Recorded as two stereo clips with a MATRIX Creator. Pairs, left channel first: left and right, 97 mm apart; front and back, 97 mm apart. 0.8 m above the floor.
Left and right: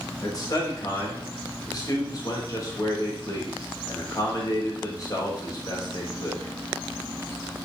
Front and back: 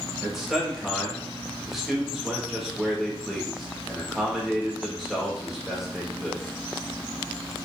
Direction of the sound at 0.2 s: 95° left.